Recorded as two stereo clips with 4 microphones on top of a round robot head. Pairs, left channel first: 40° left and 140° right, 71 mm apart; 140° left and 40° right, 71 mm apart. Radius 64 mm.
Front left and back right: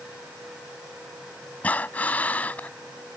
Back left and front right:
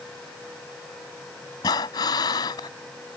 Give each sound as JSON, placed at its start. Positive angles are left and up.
{"t": 1.6, "sound": "breathing", "azimuth_deg": 105}